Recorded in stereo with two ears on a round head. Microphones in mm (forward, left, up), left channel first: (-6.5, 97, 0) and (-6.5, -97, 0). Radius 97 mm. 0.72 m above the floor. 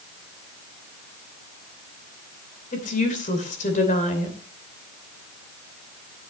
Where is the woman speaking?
35° left (ahead or behind), 2.5 m.